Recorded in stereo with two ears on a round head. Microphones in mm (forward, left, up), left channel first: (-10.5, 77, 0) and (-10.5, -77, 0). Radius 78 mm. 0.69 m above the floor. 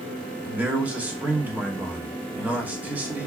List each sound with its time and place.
0.5 s a man speaking: 10° right (ahead or behind), 1.0 m